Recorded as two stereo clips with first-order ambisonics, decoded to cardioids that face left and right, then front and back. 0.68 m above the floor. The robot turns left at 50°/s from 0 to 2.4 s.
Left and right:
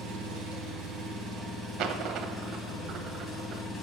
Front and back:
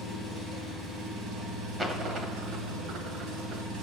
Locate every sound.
0.0 s an engine running: 85° right, 2.5 m; by 3.8 s 155° left, 2.5 m
1.8 s a dropped coin: 105° right, 0.7 m; by 3.6 s 135° right, 0.7 m